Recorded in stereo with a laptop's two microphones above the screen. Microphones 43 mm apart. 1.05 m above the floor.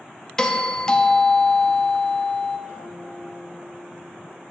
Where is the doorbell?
15° left (ahead or behind), 0.6 m.